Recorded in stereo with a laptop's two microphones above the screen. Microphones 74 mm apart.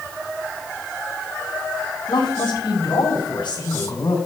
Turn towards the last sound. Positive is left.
turn(degrees=85)